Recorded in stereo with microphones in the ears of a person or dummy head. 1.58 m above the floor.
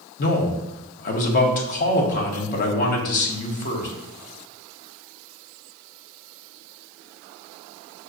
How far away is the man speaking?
About 0.8 m.